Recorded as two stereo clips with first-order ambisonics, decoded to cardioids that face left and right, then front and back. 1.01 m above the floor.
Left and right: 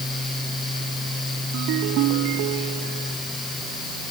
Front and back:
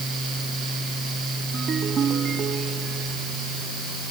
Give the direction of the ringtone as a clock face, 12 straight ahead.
4 o'clock.